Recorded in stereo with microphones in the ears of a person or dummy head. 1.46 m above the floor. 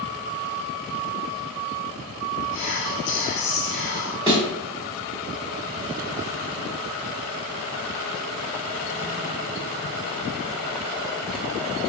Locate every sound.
2.5 s whispering: 60° left (ahead or behind), 2.0 m
4.3 s a thud: 5° right (ahead or behind), 0.8 m